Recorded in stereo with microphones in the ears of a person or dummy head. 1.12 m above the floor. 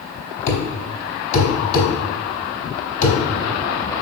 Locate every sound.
0.5 s a thud: 45° left (ahead or behind), 4 m